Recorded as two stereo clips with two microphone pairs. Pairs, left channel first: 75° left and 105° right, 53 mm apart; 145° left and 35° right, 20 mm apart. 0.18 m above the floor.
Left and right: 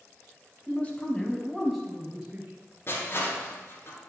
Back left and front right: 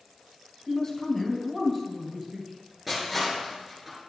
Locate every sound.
0.7 s a man speaking: 105° left, 1.7 m; by 2.5 s 60° right, 1.6 m
2.9 s crushing: 45° left, 3 m